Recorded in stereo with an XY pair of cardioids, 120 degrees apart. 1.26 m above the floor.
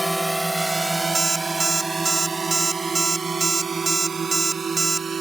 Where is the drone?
5° right; by 5.2 s 30° right.